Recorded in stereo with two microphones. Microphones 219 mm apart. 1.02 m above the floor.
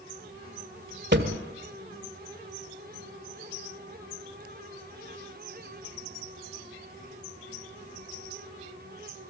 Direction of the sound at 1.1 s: 55° right (ahead or behind).